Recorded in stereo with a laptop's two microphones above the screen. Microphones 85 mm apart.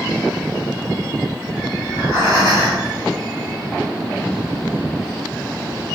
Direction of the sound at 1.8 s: 40° right (ahead or behind).